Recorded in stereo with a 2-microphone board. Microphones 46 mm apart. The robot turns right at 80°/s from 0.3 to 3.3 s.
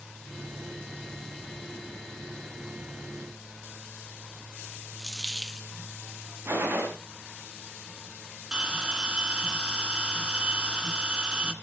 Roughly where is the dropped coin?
Centre.